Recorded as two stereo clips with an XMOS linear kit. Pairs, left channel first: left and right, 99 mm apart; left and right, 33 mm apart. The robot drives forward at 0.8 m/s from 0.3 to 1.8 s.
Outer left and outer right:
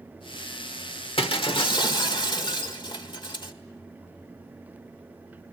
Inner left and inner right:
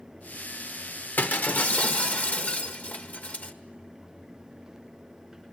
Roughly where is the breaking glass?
Left.